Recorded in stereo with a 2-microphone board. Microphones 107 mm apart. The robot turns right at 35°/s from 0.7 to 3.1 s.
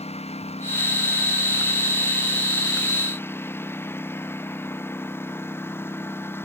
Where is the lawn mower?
75° left; by 6.5 s 160° left.